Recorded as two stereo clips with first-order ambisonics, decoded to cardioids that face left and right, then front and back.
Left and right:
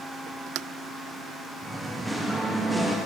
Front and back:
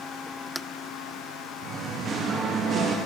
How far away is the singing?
About 0.7 m.